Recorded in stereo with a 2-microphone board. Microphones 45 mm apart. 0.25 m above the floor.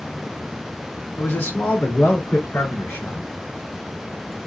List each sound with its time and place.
1.2 s a man speaking: 60° left (ahead or behind), 2.5 m; by 3.3 s 65° left (ahead or behind), 3.5 m